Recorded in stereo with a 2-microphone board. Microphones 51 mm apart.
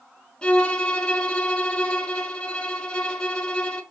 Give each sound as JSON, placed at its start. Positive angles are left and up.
{"t": 0.4, "sound": "a violin", "side_deg": 20, "distance_m": 0.7}